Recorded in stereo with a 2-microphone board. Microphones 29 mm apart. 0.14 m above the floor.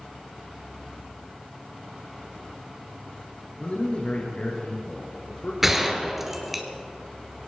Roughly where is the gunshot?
Centre.